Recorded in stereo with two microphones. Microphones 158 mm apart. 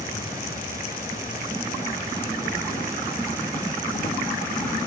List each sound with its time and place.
0.0 s an insect: 65° left (ahead or behind), 1.7 m